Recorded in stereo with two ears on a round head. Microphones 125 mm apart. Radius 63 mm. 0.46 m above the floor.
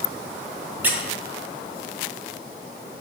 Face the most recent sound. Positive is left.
turn(degrees=-10)  # may be behind; listen again after turning